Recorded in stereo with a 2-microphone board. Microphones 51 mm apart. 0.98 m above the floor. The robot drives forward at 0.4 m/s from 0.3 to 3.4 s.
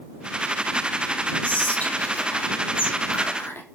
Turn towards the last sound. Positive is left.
turn(degrees=50)  # may be behind; listen again after turning